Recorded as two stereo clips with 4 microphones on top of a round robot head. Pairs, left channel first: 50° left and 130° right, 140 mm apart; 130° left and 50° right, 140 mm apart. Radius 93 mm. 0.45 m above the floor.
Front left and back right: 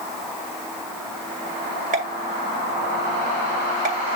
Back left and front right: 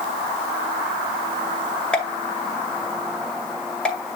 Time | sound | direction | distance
1.9 | a pop | 150° right | 2 m